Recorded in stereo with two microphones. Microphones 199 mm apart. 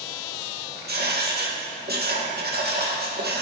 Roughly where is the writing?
Right.